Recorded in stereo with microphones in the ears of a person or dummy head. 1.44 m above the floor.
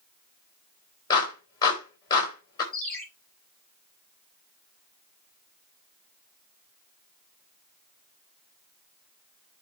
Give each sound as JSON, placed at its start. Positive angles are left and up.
{"t": 1.1, "sound": "a clap", "side_deg": 25, "distance_m": 4.0}
{"t": 2.7, "sound": "a ringtone", "side_deg": 10, "distance_m": 5.5}